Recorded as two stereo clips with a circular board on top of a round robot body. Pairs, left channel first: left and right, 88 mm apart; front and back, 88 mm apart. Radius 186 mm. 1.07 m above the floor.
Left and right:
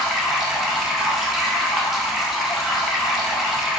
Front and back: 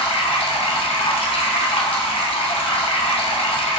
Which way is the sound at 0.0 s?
Straight ahead.